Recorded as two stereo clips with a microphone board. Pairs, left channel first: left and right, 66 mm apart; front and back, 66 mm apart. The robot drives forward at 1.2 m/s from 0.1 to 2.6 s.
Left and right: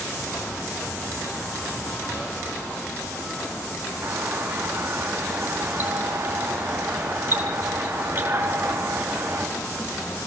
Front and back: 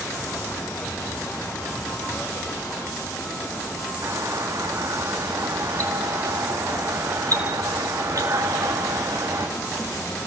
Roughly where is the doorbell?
Behind right.